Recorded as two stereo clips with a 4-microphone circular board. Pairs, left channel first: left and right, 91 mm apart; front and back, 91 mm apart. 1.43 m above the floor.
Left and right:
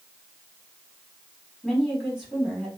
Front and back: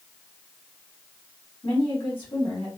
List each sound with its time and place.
1.6 s a woman speaking: 5° right, 3 m